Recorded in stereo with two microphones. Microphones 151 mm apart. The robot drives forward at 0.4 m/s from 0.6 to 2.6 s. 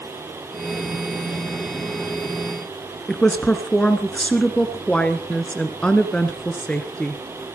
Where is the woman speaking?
5° left (ahead or behind), 1.4 m.